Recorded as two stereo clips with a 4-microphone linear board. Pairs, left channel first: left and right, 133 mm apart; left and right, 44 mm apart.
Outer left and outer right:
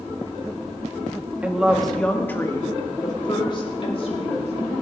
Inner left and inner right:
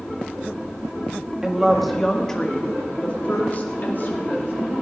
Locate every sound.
1.4 s a woman speaking: 10° right (ahead or behind), 1.9 m; by 4.5 s 50° left (ahead or behind), 3.5 m